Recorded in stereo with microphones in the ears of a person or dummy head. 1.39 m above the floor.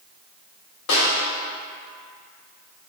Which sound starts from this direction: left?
A snare drum, at 0.9 s.